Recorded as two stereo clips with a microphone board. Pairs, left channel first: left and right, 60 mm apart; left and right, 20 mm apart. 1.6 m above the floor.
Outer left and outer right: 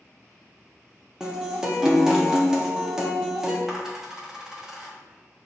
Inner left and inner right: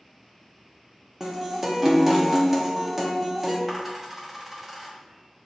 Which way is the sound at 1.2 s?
10° right (ahead or behind).